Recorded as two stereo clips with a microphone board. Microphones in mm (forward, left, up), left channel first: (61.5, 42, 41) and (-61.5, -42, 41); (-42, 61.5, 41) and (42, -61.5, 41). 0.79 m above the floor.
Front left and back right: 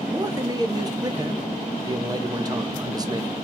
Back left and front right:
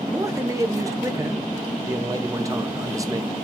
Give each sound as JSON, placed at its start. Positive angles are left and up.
{"t": 0.1, "sound": "a man speaking", "azimuth_deg": -105, "distance_m": 0.6}